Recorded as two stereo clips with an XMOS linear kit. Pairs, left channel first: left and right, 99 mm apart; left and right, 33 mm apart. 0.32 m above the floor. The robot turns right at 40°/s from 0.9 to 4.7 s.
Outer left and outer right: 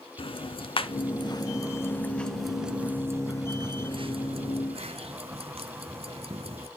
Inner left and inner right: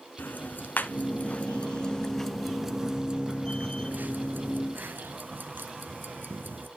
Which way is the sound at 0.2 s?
65° left (ahead or behind).